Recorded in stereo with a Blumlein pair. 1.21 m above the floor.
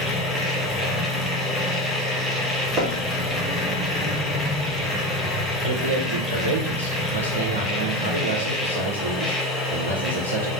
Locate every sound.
0.0 s a machine running: 5° left, 0.8 m
2.8 s knocking: 30° right, 0.8 m
5.6 s a man speaking: 70° right, 0.6 m